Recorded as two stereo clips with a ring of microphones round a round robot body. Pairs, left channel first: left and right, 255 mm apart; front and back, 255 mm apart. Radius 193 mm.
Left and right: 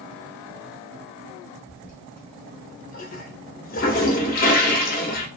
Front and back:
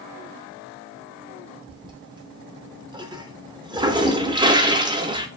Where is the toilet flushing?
115° left, 0.5 m.